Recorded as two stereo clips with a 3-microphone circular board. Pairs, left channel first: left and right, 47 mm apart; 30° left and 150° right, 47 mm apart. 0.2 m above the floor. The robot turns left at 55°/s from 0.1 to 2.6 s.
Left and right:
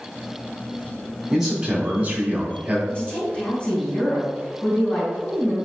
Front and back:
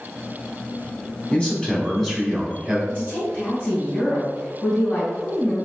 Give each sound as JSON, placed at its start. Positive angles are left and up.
{"t": 1.3, "sound": "a man speaking", "azimuth_deg": -5, "distance_m": 1.5}
{"t": 2.9, "sound": "a woman speaking", "azimuth_deg": 60, "distance_m": 1.9}